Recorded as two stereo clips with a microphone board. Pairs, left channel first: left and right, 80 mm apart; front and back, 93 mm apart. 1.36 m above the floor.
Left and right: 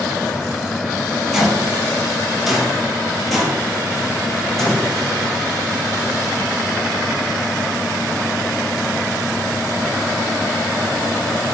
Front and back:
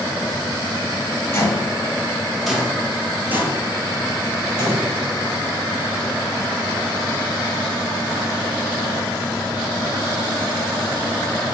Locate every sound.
1.3 s footsteps: 5° right, 1.5 m; by 4.9 s 175° left, 1.9 m